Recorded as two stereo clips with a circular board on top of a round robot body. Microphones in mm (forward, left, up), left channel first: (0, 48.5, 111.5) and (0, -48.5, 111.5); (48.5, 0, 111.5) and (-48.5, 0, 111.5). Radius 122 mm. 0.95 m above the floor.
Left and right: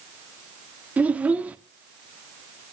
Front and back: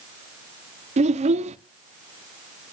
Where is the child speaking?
165° right, 0.9 m.